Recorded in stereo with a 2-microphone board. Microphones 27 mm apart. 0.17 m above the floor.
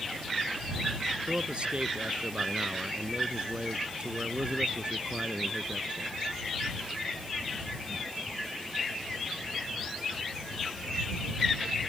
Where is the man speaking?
50° right (ahead or behind).